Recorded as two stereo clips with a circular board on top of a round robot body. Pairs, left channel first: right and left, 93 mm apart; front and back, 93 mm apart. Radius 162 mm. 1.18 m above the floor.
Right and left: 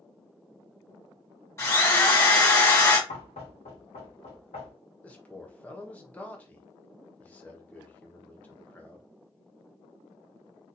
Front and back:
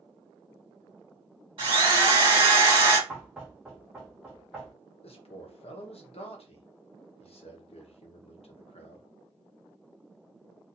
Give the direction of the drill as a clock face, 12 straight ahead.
5 o'clock.